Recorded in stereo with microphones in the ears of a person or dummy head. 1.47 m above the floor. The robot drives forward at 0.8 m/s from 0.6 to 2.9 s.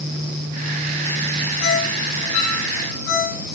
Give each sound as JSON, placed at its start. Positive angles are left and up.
{"t": 1.6, "sound": "a ringtone", "side_deg": 75, "distance_m": 10.0}